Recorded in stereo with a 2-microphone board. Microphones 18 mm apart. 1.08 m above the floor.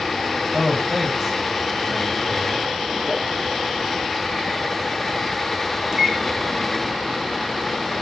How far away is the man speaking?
About 6.5 m.